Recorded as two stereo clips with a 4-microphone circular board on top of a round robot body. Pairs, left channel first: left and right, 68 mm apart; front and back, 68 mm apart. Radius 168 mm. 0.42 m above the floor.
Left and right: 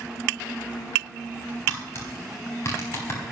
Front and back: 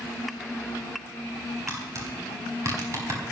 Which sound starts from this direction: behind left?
Tapping, at 1.7 s.